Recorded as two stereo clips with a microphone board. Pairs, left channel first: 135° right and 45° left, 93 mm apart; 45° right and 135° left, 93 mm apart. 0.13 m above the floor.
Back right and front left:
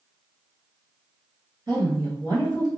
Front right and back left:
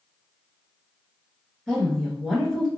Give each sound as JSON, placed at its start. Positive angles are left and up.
{"t": 1.7, "sound": "a woman speaking", "azimuth_deg": 40, "distance_m": 2.0}